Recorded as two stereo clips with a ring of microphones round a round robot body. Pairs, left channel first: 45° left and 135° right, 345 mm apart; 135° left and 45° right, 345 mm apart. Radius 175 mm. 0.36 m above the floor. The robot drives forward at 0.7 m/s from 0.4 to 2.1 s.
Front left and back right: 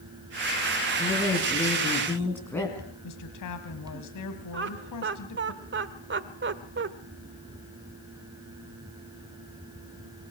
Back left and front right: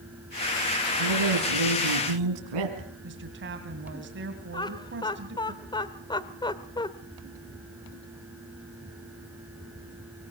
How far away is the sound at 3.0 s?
About 2.5 m.